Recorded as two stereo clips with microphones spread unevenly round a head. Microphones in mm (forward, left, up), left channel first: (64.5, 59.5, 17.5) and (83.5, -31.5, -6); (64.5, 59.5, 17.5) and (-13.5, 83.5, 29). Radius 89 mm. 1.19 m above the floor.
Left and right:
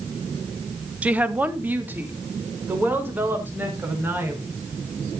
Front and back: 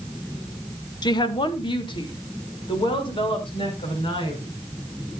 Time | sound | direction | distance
1.0 | a woman speaking | 10° right | 1.1 m